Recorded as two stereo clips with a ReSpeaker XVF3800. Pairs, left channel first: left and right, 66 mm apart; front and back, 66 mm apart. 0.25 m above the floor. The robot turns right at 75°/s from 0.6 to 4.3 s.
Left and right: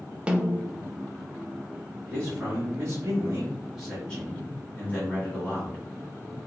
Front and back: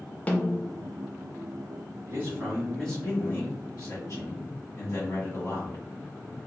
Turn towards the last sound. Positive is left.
turn(degrees=35)